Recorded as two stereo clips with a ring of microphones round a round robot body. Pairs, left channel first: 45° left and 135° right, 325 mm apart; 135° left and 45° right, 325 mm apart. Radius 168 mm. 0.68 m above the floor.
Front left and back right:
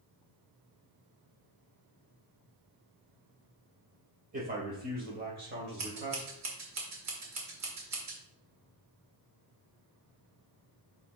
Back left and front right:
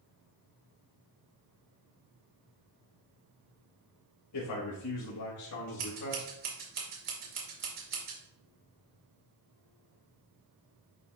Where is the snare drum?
No snare drum in this recording.